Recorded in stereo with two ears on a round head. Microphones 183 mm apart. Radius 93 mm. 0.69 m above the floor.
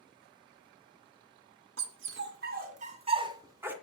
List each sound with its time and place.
1.8 s a dog barking: 65° right (ahead or behind), 2.5 m; by 3.7 s 10° right (ahead or behind), 2 m